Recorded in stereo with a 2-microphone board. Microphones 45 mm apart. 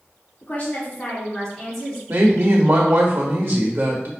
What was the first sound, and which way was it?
A woman speaking, 40° left (ahead or behind).